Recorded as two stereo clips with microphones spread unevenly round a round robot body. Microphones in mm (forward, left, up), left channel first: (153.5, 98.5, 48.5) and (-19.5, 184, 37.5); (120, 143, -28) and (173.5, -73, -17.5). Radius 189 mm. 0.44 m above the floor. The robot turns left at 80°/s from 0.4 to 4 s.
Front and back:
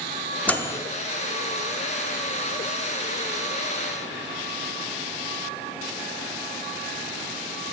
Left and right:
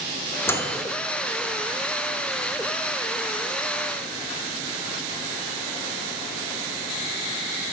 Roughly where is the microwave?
Ahead left.